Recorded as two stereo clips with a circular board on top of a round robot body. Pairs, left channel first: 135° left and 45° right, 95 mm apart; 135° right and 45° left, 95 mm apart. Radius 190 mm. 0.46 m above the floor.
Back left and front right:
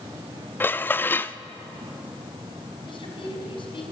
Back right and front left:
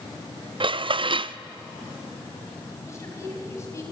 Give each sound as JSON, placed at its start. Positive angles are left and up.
{"t": 0.6, "sound": "dishes clattering", "azimuth_deg": 65, "distance_m": 0.6}
{"t": 2.9, "sound": "a woman speaking", "azimuth_deg": 165, "distance_m": 5.0}